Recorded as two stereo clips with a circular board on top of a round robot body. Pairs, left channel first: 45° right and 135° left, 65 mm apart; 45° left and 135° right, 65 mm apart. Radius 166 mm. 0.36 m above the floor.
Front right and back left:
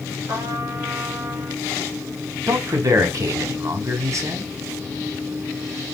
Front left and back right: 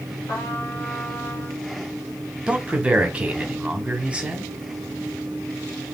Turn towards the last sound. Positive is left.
turn(degrees=155)